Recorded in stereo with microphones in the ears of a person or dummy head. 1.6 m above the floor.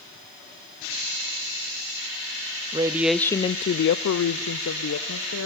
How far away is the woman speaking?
About 0.7 m.